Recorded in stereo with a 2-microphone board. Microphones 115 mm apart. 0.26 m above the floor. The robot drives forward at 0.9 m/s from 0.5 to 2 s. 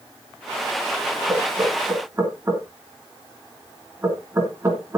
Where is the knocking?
20° right (ahead or behind), 4 m; by 5.0 s 25° right (ahead or behind), 3.5 m.